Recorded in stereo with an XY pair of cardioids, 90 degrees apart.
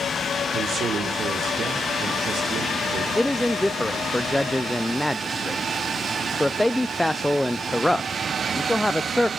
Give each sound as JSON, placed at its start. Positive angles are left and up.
{"t": 0.5, "sound": "a man speaking", "azimuth_deg": -65, "distance_m": 4.5}
{"t": 3.1, "sound": "a man speaking", "azimuth_deg": 5, "distance_m": 0.7}